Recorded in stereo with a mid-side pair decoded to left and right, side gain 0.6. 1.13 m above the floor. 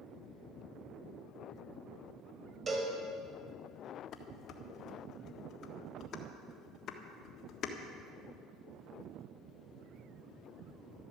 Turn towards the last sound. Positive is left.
turn(degrees=55)